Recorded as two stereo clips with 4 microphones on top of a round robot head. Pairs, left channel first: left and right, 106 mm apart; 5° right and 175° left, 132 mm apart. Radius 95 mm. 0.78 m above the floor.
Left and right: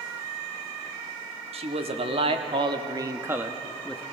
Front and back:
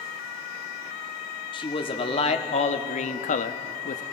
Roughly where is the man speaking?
Ahead right.